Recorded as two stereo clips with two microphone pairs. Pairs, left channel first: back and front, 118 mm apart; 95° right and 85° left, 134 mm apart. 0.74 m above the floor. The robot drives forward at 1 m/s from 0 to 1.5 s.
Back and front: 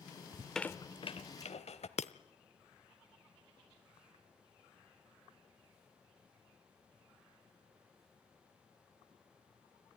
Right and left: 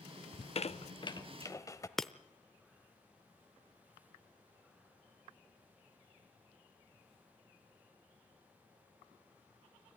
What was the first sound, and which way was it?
A squeak, 60° right.